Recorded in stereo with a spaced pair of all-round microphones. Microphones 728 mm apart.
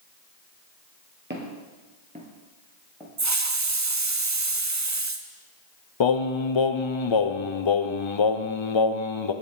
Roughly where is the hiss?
Right.